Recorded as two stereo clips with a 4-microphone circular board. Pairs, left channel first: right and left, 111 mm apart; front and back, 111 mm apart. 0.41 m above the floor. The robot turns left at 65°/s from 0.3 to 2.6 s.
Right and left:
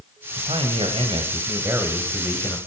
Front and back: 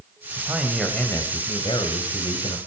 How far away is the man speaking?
About 2 m.